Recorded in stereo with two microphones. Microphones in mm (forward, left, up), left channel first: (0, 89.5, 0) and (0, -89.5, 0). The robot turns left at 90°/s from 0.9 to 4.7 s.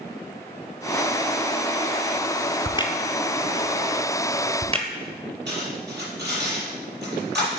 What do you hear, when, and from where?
2.6 s a crack: 40° left (ahead or behind), 0.9 m; by 4.9 s 35° right (ahead or behind), 0.9 m
5.5 s cutlery clinking: 80° right, 4.5 m